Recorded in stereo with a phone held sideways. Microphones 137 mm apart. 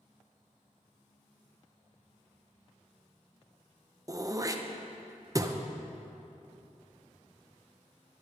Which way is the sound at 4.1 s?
25° right (ahead or behind).